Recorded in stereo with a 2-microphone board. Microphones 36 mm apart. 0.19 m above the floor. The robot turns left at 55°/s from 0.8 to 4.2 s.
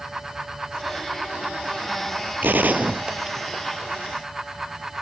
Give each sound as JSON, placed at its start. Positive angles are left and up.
{"t": 2.4, "sound": "a gunshot", "side_deg": -60}